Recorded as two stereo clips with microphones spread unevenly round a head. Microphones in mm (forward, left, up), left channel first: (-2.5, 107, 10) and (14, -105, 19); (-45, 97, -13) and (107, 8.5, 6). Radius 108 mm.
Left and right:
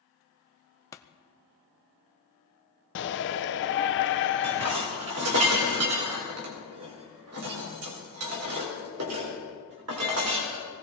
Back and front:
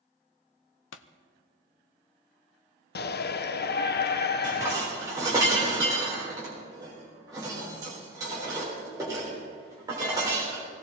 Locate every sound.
0.9 s a pop: 170° left, 0.7 m
3.0 s a shout: 125° left, 1.0 m
4.4 s dishes clattering: 105° right, 3.5 m